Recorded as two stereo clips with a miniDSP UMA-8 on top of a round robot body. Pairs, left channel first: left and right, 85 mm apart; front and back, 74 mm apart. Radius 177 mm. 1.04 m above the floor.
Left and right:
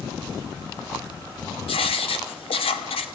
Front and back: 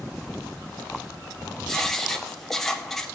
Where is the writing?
85° left, 1.2 m.